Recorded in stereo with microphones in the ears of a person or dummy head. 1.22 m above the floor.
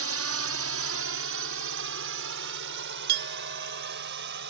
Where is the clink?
55° right (ahead or behind).